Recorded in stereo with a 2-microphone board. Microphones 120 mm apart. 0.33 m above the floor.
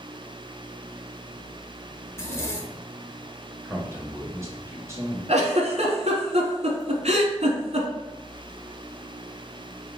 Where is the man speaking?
25° right (ahead or behind), 1.1 m.